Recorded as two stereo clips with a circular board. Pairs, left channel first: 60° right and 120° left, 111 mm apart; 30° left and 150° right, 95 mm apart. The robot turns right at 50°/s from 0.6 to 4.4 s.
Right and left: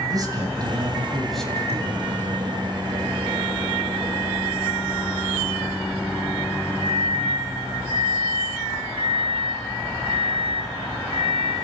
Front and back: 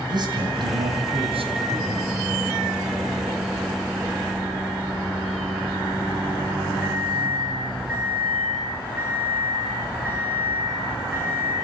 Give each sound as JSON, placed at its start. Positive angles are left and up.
{"t": 0.1, "sound": "a man speaking", "azimuth_deg": 175, "distance_m": 3.0}
{"t": 1.6, "sound": "a microwave", "azimuth_deg": 140, "distance_m": 7.5}